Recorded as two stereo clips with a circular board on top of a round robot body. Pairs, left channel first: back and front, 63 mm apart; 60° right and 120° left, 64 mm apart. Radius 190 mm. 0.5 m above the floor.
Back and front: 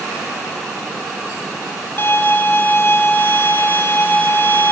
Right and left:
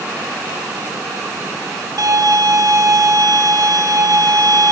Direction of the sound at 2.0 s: 130° left.